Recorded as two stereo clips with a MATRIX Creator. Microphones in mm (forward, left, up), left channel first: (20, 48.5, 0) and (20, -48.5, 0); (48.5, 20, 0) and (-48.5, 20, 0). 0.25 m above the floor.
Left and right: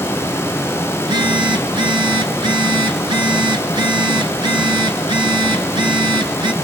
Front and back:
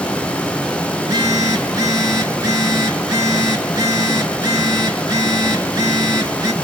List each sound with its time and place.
1.0 s a phone buzzing: 130° right, 1.8 m